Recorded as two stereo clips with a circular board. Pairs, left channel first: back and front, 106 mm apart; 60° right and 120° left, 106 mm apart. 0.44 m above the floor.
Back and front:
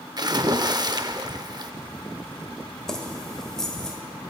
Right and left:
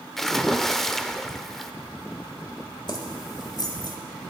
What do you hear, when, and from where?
0.2 s a splash: 25° left, 0.5 m
2.9 s keys jangling: 95° right, 1.3 m